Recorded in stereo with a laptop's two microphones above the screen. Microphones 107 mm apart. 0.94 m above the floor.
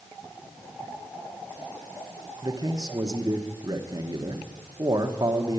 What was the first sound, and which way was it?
A man speaking, 40° right (ahead or behind).